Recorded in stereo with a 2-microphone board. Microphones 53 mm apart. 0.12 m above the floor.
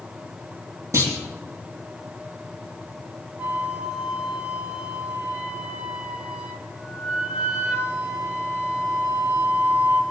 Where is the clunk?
70° right (ahead or behind), 4 m.